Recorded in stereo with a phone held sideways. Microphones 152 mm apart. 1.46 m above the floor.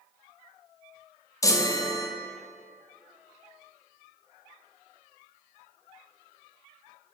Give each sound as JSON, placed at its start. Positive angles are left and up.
{"t": 1.4, "sound": "a chime", "side_deg": 20, "distance_m": 0.6}